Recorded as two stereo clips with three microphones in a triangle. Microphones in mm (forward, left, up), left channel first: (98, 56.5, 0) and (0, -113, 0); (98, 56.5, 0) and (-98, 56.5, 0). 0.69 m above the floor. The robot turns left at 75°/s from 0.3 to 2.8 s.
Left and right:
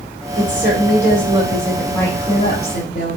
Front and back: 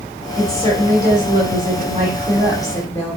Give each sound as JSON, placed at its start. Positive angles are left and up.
{"t": 0.4, "sound": "a woman speaking", "azimuth_deg": -100, "distance_m": 2.5}